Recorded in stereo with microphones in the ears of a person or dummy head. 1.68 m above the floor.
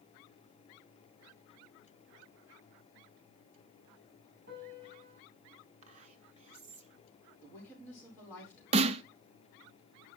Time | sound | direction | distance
4.5 | a piano | 55° right (ahead or behind) | 7 m
5.8 | whispering | 35° right (ahead or behind) | 1.7 m
7.4 | a woman speaking | 15° left (ahead or behind) | 4.5 m
8.7 | a snare drum | 30° right (ahead or behind) | 0.5 m